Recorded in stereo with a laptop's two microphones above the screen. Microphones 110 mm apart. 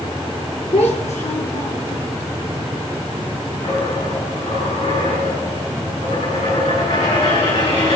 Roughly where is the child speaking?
Left.